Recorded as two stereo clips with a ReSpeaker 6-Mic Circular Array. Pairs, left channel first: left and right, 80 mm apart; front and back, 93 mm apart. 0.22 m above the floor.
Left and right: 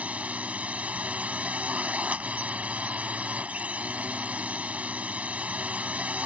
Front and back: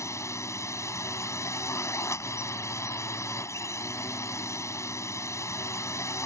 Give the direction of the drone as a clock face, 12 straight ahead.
1 o'clock.